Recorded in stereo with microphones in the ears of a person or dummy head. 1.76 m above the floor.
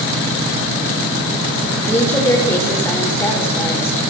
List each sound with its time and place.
1.9 s a woman speaking: 10° left (ahead or behind), 6 m